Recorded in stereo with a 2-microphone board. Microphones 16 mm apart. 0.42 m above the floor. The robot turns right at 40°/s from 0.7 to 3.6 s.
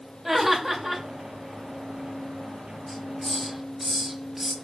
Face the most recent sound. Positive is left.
turn(degrees=-15)  # may be behind; listen again after turning